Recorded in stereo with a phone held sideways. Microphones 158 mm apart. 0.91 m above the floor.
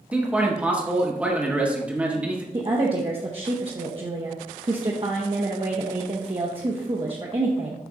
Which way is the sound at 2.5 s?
35° right (ahead or behind).